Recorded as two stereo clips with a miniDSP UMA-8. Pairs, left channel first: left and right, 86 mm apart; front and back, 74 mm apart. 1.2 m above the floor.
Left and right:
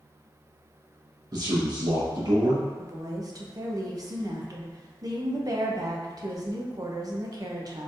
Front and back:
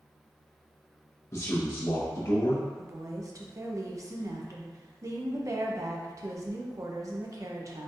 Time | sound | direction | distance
1.3 | a man speaking | 50° right | 1.3 m
2.8 | a woman speaking | 135° right | 0.7 m